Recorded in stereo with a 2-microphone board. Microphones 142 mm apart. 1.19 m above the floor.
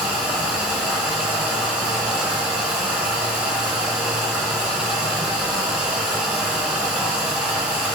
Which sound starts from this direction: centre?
Running water, at 0.0 s.